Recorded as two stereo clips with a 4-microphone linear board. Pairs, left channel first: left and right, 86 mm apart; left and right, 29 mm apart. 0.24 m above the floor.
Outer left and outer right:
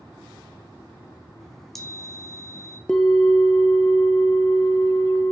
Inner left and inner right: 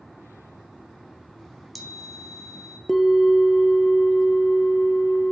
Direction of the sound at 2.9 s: 10° left (ahead or behind).